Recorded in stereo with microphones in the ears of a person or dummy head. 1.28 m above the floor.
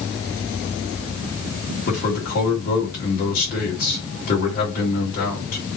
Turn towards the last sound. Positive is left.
turn(degrees=50)  # may be behind; listen again after turning